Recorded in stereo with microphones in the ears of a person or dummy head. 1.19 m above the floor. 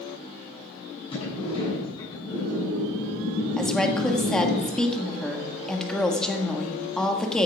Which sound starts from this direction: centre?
A woman speaking, at 3.6 s.